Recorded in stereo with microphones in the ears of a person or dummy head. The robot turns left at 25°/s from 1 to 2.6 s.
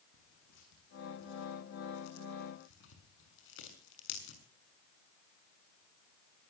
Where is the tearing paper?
70° left (ahead or behind), 6.5 m; by 4.4 s 65° left (ahead or behind), 6.5 m.